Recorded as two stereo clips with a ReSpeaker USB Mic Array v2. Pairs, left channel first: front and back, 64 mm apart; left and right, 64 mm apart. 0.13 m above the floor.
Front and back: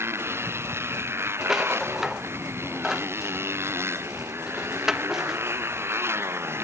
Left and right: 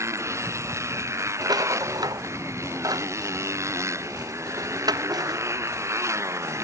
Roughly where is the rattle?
Right.